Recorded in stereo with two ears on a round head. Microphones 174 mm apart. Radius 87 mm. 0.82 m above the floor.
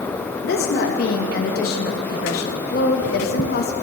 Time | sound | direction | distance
0.4 | a woman speaking | 50° left (ahead or behind) | 0.5 m